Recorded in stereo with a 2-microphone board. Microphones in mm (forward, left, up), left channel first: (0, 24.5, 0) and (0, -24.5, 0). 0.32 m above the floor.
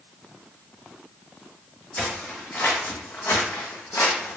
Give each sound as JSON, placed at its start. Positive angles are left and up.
{"t": 2.0, "sound": "footsteps", "side_deg": 25, "distance_m": 1.4}